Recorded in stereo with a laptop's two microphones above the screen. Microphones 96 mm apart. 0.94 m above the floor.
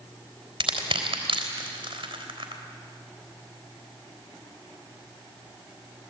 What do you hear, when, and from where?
0.6 s crushing: 75° right (ahead or behind), 3.5 m